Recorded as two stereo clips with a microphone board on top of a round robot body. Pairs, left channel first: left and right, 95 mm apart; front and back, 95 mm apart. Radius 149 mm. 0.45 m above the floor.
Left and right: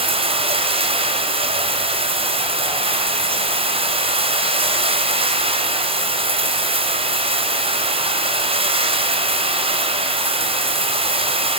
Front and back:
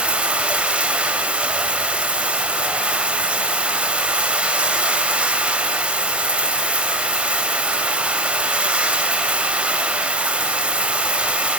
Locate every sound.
0.0 s running water: 100° right, 3 m